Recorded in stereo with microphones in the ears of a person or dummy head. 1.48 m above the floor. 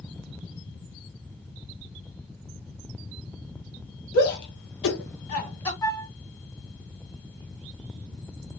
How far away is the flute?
About 0.8 m.